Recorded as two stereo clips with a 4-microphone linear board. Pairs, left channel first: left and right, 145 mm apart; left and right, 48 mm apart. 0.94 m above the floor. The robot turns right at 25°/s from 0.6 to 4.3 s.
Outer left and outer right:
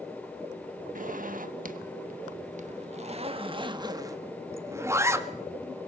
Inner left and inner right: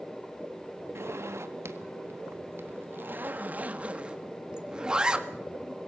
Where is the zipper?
65° right (ahead or behind), 1.5 m; by 5.3 s 20° right (ahead or behind), 1.5 m.